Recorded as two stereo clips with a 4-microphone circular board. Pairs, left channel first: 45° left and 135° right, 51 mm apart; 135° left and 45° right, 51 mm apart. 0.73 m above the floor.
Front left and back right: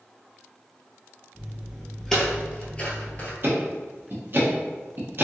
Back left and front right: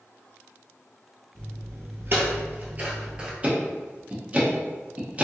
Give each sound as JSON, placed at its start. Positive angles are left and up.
{"t": 1.4, "sound": "footsteps", "azimuth_deg": -50, "distance_m": 1.2}
{"t": 3.4, "sound": "ticking", "azimuth_deg": -105, "distance_m": 0.8}